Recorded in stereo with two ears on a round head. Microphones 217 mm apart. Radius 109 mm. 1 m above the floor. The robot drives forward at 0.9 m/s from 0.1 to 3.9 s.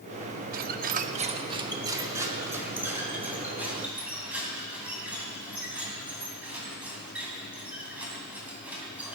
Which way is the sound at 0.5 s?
35° right (ahead or behind).